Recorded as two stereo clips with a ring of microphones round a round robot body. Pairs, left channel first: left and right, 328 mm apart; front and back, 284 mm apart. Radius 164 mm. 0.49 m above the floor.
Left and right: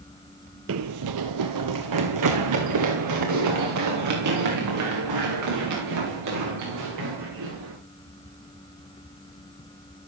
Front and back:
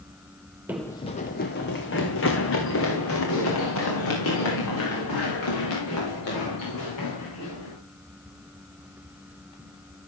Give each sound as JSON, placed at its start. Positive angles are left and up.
{"t": 0.7, "sound": "running footsteps", "azimuth_deg": -100, "distance_m": 0.5}